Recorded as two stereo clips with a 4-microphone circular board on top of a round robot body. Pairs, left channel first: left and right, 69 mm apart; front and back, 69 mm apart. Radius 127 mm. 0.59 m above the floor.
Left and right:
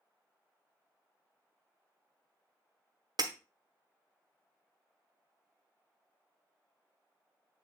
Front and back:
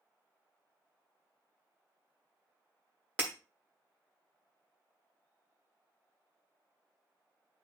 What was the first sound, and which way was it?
Breaking glass, 110° right.